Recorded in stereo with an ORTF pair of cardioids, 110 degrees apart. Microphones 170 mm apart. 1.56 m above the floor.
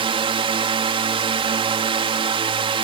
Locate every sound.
0.0 s a drone: 35° right